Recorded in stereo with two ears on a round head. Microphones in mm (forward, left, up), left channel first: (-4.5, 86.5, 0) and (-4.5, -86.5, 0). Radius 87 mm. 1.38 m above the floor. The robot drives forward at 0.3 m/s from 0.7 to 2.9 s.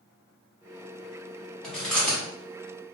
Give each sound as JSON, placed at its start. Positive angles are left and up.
{"t": 1.6, "sound": "chewing", "side_deg": 5, "distance_m": 1.0}